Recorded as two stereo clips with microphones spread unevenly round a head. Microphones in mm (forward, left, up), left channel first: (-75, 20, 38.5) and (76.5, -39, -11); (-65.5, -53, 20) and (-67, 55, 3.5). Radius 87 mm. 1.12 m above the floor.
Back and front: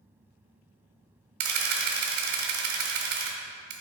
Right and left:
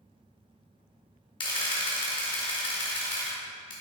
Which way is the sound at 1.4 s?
55° right.